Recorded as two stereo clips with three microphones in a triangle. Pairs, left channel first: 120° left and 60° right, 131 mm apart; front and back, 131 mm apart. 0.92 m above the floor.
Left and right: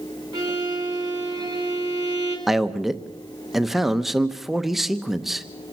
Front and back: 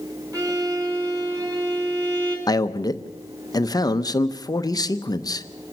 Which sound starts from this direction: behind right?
A violin, at 0.3 s.